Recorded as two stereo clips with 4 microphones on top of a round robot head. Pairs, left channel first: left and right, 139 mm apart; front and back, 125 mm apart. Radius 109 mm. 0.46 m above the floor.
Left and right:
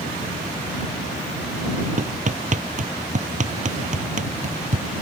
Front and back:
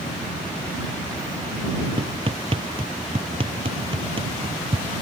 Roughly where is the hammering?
Behind right.